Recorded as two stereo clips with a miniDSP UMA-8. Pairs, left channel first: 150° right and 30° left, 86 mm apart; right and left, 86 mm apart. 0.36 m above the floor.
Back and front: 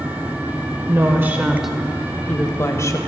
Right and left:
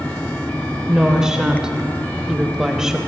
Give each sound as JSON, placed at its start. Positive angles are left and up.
{"t": 0.9, "sound": "a woman speaking", "azimuth_deg": 10, "distance_m": 1.1}